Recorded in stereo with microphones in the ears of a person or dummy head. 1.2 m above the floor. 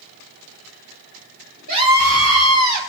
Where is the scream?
55° right (ahead or behind), 2 m; by 2.8 s 40° right (ahead or behind), 2 m.